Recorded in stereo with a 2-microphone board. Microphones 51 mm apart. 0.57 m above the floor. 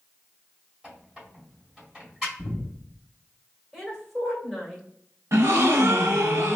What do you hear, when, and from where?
0.8 s a squeak: 10° right (ahead or behind), 1.9 m
2.4 s breathing: 40° left (ahead or behind), 1.2 m
3.7 s a woman speaking: 5° left (ahead or behind), 1.7 m
5.3 s a gasp: 70° right (ahead or behind), 0.8 m